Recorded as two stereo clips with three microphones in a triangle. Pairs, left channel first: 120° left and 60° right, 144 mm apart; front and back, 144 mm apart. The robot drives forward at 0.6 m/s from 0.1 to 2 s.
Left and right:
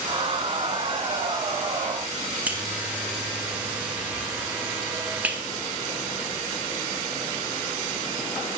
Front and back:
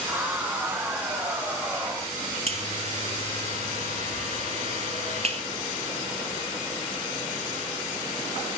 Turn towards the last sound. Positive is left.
turn(degrees=-140)